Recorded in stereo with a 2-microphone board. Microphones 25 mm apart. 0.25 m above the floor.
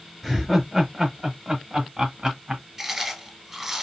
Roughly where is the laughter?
Centre.